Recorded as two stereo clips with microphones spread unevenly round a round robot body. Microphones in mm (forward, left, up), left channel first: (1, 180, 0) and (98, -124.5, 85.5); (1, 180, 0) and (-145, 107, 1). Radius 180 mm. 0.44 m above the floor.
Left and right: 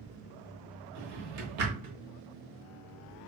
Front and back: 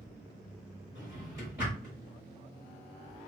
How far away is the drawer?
About 0.9 m.